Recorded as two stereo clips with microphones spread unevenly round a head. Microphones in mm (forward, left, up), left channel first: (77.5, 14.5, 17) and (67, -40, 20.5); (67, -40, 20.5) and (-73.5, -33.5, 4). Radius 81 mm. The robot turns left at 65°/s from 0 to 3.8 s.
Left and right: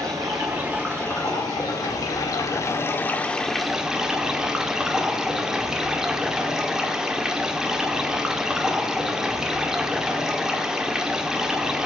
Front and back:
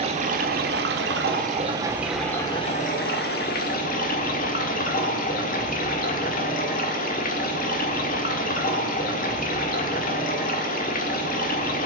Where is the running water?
135° right, 1.5 m; by 11.9 s 20° right, 1.5 m.